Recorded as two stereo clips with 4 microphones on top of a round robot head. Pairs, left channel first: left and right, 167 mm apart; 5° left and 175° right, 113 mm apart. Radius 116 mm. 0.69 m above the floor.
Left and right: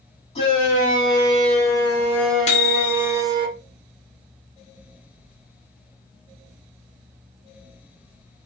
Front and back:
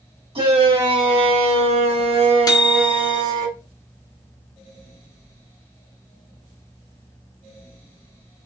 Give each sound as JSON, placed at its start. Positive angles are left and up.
{"t": 0.3, "sound": "a shout", "azimuth_deg": 150, "distance_m": 1.8}
{"t": 2.5, "sound": "a microwave", "azimuth_deg": 55, "distance_m": 0.7}